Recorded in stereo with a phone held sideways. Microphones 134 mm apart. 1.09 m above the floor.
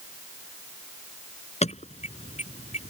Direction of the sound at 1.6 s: 55° left (ahead or behind).